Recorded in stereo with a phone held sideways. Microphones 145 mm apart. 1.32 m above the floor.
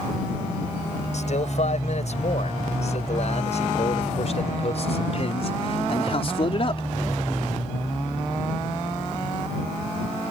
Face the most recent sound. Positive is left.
turn(degrees=40)  # may be behind; listen again after turning